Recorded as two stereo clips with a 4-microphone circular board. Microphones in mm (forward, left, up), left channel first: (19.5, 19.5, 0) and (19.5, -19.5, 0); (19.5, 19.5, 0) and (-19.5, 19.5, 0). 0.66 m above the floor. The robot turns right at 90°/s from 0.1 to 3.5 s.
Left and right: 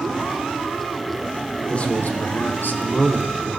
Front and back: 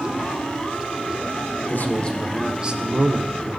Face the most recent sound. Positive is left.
turn(degrees=-170)